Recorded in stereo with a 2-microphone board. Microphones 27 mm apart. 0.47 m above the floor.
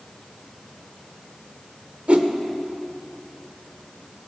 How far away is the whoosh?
About 0.9 m.